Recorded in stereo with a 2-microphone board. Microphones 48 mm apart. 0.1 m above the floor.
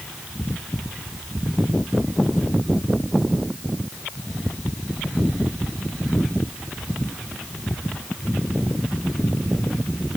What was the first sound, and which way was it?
Only background noise.